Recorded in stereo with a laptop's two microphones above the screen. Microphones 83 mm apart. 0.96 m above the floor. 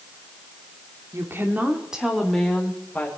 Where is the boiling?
No boiling in this recording.